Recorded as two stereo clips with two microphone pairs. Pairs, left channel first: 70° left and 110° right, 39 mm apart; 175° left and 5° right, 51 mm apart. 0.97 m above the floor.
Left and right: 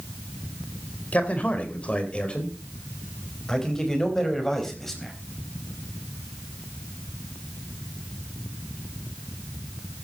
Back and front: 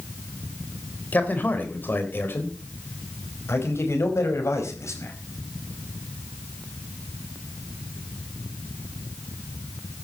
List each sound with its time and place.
1.1 s a man speaking: 115° left, 4 m; by 5.1 s 150° left, 5 m